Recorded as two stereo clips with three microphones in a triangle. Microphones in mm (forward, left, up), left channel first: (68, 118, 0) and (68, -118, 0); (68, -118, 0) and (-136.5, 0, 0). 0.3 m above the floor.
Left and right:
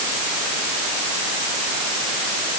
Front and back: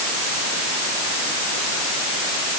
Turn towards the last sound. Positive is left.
No sound to turn to.